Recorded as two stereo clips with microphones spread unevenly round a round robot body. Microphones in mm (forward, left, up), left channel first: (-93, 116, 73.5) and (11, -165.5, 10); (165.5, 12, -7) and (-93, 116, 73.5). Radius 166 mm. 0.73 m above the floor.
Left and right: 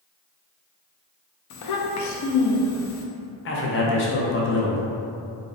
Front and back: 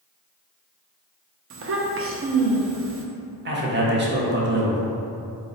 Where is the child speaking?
110° left, 0.6 m.